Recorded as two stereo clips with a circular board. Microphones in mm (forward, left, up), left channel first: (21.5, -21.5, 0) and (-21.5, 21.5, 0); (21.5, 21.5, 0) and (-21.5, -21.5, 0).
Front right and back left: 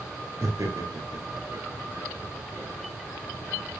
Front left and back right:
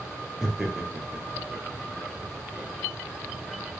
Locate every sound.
0.4 s laughter: 145° left, 4 m; by 2.7 s 160° left, 3 m